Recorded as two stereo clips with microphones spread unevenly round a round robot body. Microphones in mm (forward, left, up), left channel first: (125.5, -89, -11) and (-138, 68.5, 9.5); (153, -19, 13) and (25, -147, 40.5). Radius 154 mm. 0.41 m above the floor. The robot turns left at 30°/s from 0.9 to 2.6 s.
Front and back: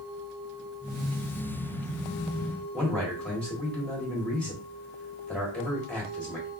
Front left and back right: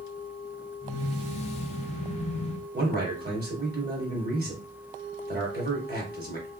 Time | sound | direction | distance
2.7 | a man speaking | 115° right | 1.8 m